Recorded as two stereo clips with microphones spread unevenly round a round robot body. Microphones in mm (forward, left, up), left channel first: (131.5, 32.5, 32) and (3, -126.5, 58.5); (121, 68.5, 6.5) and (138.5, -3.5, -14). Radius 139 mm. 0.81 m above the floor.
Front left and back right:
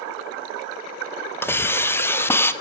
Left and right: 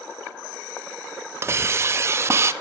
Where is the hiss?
25° right, 0.5 m.